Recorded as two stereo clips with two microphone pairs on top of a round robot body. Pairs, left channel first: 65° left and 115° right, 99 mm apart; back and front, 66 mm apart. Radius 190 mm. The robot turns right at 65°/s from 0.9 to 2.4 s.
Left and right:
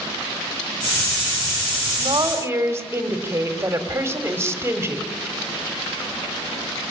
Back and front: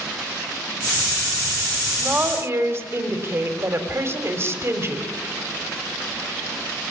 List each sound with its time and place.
1.8 s a woman speaking: 85° right, 3 m; by 5.1 s 50° right, 3 m